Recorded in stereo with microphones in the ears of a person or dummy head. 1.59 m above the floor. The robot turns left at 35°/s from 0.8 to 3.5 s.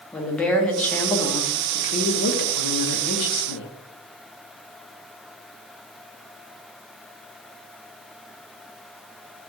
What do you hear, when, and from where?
0.1 s a woman speaking: 175° left, 0.6 m; by 3.7 s 80° left, 0.6 m